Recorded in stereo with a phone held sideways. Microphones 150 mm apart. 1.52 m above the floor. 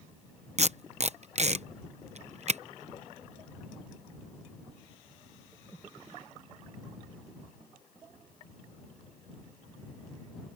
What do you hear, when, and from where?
0.6 s tape being pulled: 50° right (ahead or behind)